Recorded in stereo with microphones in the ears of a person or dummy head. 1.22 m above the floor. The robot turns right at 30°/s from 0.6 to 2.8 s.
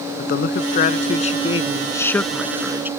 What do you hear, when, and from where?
0.2 s a man speaking: 130° left; by 2.9 s 165° right